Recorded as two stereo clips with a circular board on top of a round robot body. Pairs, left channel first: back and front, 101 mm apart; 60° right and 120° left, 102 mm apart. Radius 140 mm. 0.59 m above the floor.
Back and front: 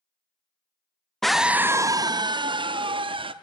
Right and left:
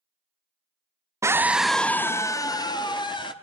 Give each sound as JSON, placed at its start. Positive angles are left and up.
{"t": 1.2, "sound": "a scream", "azimuth_deg": 95, "distance_m": 0.6}